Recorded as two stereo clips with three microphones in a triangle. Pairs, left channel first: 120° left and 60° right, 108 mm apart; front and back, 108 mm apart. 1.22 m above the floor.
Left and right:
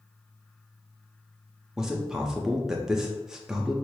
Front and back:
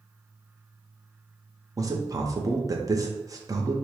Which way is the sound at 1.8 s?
145° right.